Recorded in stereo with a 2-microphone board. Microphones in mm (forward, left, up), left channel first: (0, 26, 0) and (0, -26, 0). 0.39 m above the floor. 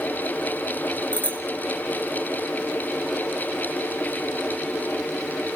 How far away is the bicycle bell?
About 2.5 m.